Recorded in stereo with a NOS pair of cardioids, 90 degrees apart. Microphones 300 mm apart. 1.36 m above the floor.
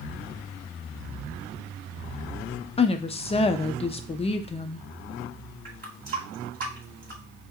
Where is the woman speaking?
20° left, 0.6 m.